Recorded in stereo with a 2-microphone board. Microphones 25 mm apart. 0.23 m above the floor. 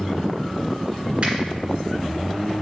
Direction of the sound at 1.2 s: 50° right (ahead or behind).